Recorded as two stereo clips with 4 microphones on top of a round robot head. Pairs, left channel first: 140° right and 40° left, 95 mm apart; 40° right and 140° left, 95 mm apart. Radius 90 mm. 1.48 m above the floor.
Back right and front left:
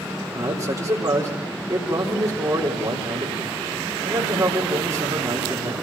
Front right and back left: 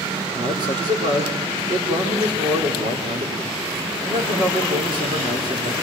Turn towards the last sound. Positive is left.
turn(degrees=100)